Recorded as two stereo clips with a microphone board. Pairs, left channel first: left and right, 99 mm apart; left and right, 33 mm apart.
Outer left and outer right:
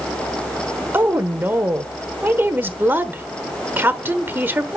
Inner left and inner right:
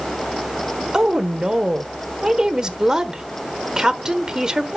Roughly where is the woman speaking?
Right.